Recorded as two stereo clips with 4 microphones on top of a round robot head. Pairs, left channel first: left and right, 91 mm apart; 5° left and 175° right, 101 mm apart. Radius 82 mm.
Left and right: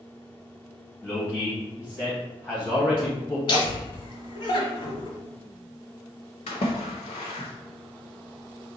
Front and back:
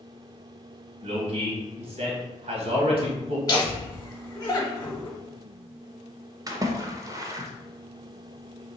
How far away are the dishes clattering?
I don't hear dishes clattering.